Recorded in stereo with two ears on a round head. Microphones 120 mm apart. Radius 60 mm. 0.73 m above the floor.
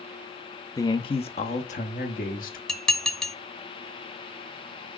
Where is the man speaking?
25° left (ahead or behind), 0.6 m; by 2.6 s 65° left (ahead or behind), 1.5 m.